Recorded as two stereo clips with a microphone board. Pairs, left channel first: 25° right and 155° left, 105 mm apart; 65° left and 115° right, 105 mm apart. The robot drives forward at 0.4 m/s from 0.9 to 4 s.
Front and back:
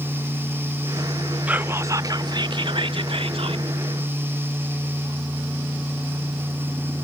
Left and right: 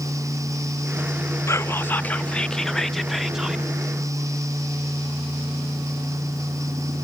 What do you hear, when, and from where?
1.5 s whispering: 95° left, 0.6 m; by 3.6 s 165° left, 1.0 m